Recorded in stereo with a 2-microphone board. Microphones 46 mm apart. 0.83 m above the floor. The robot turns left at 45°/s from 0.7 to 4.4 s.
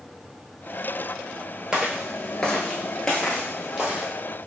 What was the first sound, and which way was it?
Footsteps, 15° right (ahead or behind).